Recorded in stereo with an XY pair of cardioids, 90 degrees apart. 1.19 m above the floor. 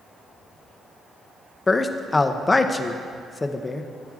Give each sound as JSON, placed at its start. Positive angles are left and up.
{"t": 1.7, "sound": "a man speaking", "azimuth_deg": 25, "distance_m": 0.5}